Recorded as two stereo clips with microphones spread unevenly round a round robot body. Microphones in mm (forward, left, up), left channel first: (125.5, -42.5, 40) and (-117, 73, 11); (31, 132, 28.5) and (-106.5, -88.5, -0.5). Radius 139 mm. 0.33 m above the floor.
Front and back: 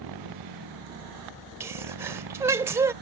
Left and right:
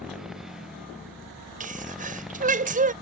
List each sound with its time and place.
0.0 s a motorcycle: 150° left
1.6 s a sneeze: 140° right